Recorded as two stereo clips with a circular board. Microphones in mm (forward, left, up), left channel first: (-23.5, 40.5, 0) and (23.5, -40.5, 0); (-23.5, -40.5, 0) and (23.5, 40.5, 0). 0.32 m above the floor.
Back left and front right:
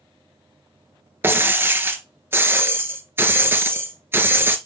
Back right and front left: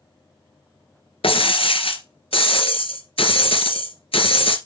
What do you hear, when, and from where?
1.2 s breaking glass: 125° right, 1.1 m